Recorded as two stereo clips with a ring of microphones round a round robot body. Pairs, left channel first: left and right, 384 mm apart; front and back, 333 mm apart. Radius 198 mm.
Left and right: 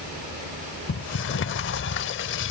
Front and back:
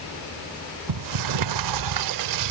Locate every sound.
0.9 s a sliding door: 150° left